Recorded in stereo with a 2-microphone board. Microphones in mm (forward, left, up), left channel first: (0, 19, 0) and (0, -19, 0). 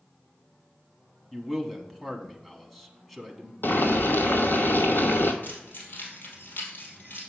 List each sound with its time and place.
1.3 s a man speaking: centre (ahead or behind), 1.1 m
3.6 s boiling: 65° left (ahead or behind), 0.9 m
5.4 s keys jangling: 55° left (ahead or behind), 2.5 m